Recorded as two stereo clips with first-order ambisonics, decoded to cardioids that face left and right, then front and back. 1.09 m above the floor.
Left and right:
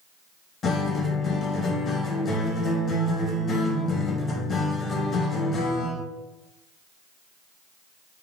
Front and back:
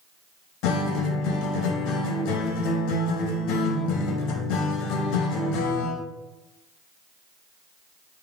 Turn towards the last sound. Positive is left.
turn(degrees=25)